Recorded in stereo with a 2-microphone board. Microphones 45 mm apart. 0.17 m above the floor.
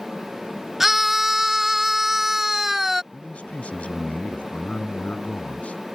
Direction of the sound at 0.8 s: 10° right (ahead or behind).